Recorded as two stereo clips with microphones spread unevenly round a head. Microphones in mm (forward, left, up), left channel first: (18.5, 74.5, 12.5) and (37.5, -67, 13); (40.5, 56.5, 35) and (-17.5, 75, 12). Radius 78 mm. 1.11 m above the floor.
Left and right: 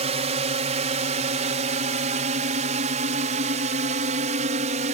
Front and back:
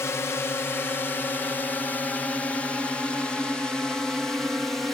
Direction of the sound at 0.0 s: 80° right.